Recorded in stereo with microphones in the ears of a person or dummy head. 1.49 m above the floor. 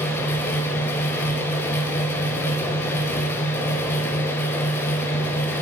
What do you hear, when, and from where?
0.0 s a fan: 15° left (ahead or behind), 0.7 m